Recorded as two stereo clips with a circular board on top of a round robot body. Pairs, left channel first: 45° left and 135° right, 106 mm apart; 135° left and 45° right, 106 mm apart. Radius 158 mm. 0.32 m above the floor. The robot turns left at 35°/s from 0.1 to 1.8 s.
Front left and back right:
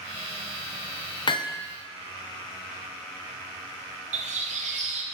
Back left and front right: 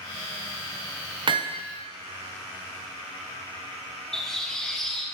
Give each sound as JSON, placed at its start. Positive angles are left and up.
{"t": 1.3, "sound": "hammering", "azimuth_deg": 0, "distance_m": 0.6}
{"t": 4.1, "sound": "a bird", "azimuth_deg": -140, "distance_m": 0.6}